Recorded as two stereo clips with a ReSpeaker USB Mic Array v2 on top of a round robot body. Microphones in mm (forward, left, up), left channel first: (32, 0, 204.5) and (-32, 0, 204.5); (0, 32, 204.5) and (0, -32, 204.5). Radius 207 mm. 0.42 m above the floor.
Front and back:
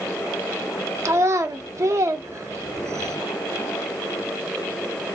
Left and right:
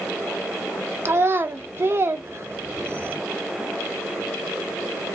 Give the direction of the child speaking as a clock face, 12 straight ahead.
5 o'clock.